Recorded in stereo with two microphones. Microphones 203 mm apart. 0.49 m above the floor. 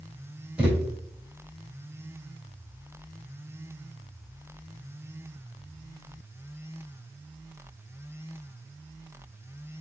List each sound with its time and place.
0.6 s a thud: 5° right (ahead or behind), 3 m